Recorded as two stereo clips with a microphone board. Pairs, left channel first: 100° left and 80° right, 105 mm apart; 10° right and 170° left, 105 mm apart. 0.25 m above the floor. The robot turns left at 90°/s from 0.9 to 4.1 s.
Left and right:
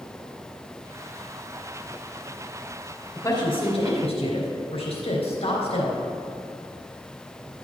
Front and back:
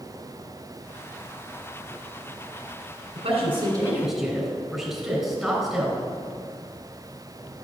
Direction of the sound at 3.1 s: 165° left.